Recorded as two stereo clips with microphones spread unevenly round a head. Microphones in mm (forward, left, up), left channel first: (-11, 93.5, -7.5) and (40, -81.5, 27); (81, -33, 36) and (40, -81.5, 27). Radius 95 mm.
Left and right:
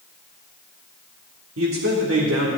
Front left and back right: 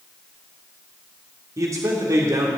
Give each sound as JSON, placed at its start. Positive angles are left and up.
{"t": 1.6, "sound": "a man speaking", "azimuth_deg": -95, "distance_m": 2.0}